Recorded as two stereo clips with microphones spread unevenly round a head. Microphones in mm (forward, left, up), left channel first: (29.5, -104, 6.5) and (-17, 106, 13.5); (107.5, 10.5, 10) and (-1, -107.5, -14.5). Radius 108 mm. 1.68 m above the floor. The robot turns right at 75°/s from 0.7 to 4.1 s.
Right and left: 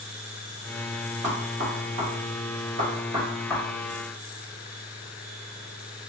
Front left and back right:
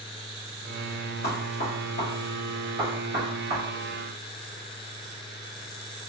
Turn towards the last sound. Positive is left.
turn(degrees=-115)